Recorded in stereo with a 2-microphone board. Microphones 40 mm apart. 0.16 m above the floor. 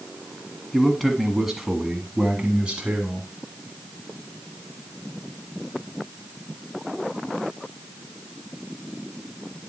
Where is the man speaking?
5° left (ahead or behind), 1.6 m; by 3.3 s 25° right (ahead or behind), 1.8 m.